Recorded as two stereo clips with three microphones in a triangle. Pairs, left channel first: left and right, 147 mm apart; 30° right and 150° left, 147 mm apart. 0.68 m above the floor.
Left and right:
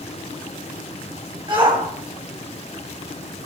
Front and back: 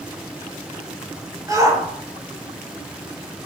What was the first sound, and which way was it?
A shout, 145° right.